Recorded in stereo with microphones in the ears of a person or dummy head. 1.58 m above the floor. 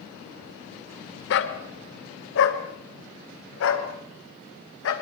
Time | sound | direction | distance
1.3 | a dog barking | 60° left (ahead or behind) | 2 m